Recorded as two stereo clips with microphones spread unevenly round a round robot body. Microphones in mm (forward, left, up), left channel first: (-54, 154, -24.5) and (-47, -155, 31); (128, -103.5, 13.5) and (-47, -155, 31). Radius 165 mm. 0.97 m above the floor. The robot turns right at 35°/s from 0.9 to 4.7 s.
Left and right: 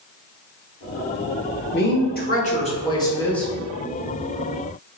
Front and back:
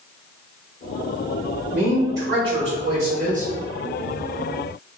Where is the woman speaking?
110° left, 1.1 m; by 3.5 s 170° left, 1.1 m.